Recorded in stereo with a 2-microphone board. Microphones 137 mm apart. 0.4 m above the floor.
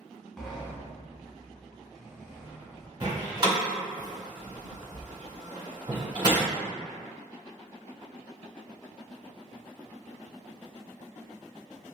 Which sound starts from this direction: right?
A door slam, at 3.0 s.